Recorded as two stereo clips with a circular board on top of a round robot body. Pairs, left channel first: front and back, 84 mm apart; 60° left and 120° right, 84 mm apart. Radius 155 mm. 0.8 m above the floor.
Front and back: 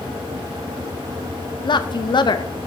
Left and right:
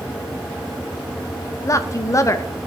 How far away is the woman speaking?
About 0.9 m.